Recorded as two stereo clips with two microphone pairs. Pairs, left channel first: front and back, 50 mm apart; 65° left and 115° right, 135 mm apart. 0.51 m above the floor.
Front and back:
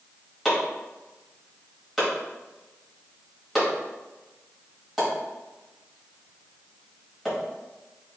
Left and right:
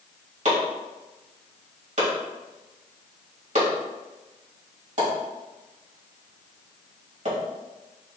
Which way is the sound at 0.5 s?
95° right.